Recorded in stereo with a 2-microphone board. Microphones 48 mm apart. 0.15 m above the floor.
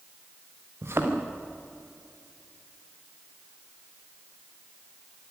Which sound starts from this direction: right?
A thud, at 0.8 s.